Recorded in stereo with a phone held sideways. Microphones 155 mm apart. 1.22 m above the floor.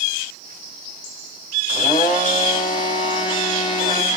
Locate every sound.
1.7 s a blender: 30° left (ahead or behind), 5 m